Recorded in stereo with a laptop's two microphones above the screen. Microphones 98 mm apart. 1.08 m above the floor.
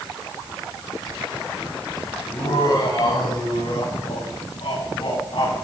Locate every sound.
2.3 s laughter: 40° left (ahead or behind), 5.5 m; by 5.5 s 55° left (ahead or behind), 7 m